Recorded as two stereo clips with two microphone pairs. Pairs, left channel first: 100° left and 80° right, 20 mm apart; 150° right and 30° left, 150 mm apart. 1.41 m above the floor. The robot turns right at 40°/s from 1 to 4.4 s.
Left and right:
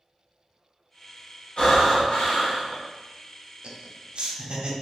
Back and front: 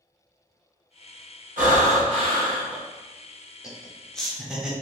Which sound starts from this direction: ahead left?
Breathing, at 1.6 s.